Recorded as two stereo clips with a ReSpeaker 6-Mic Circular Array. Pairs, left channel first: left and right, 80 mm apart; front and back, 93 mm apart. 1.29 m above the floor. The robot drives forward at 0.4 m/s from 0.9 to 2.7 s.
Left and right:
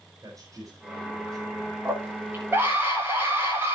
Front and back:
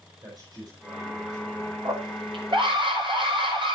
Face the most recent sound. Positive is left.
turn(degrees=-155)